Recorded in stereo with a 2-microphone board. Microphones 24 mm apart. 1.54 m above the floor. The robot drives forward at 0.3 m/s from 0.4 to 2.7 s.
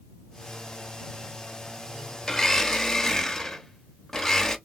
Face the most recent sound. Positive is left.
turn(degrees=20)  # may be behind; listen again after turning